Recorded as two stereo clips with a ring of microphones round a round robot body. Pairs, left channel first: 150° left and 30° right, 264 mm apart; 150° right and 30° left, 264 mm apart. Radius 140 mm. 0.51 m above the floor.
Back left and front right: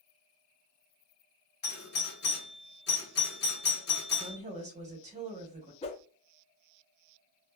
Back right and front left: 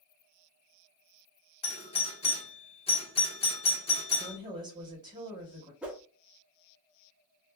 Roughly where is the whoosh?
Left.